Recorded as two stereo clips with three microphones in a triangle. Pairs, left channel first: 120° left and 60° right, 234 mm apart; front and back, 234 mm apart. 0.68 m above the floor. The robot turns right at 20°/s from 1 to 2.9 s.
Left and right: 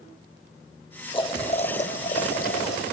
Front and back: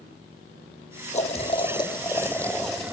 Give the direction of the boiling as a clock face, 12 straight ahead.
10 o'clock.